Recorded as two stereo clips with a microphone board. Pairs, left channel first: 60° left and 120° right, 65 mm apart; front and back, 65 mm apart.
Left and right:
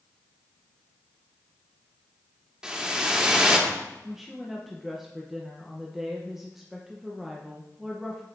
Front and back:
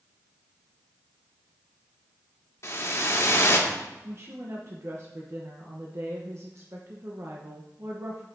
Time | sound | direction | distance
2.6 | a whoosh | 40° right | 1.4 m
4.0 | a woman speaking | 155° left | 1.0 m